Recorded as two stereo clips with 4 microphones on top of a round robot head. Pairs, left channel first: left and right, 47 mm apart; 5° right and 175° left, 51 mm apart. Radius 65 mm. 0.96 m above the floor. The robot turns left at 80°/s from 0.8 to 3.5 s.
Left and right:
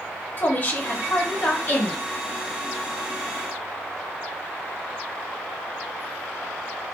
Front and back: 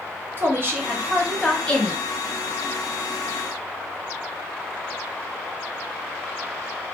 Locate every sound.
0.4 s a woman speaking: 140° left, 1.0 m; by 2.0 s 45° left, 1.0 m